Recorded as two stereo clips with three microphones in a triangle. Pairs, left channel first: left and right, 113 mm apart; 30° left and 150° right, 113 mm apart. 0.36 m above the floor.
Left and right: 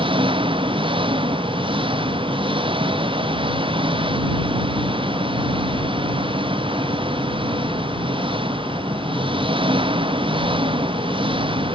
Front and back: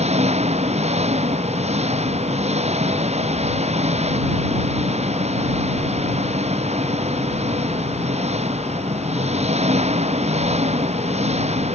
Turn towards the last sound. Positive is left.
turn(degrees=-130)